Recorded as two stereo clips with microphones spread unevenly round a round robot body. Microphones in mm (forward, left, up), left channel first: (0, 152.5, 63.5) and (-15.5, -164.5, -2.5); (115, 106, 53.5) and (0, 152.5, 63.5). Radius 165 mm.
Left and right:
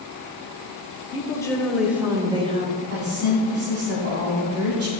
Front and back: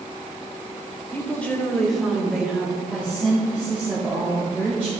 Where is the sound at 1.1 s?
10° left, 1.0 m; by 2.8 s 125° right, 1.1 m.